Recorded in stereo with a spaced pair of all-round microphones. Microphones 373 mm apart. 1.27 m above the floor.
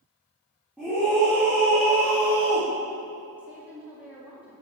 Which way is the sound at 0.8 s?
5° right (ahead or behind).